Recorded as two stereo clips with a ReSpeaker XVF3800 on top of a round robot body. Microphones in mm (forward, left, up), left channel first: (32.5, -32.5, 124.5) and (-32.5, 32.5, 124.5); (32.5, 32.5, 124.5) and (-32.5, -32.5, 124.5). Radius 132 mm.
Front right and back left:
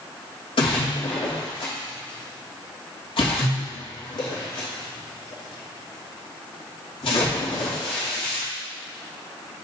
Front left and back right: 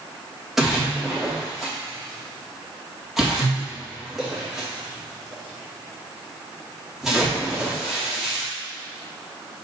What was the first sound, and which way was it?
A splash, 45° right.